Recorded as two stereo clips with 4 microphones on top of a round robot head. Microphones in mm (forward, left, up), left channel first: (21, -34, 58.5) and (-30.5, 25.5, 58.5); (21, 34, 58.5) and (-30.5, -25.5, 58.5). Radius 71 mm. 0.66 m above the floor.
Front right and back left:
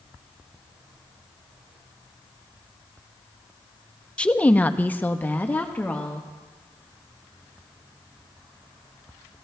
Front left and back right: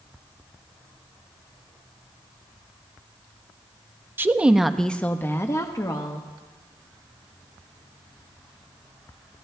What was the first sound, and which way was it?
A woman speaking, 105° right.